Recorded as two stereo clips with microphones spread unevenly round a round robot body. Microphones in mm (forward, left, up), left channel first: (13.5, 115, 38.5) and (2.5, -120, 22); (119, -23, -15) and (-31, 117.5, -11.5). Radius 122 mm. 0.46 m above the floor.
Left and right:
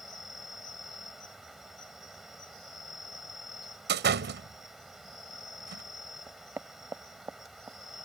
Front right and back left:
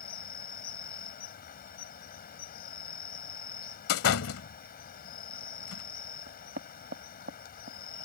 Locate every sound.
0.0 s an insect: 5° right
3.9 s a door slam: 50° right
6.3 s knocking: 175° right